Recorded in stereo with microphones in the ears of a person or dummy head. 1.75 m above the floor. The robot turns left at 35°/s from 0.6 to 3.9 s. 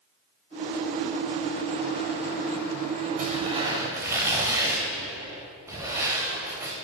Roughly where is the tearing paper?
Right.